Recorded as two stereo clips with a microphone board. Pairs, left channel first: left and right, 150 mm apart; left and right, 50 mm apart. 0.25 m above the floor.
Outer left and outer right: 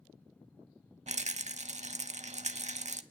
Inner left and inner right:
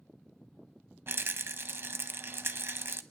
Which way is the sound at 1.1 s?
50° right (ahead or behind).